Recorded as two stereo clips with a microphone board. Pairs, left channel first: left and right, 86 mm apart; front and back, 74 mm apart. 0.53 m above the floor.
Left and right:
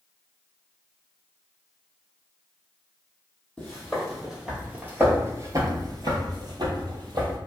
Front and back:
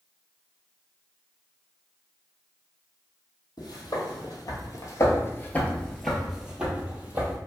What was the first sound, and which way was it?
Footsteps, 5° left.